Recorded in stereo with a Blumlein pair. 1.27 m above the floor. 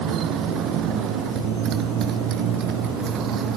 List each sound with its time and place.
0.0 s a motorcycle: 35° right; by 3.6 s 30° right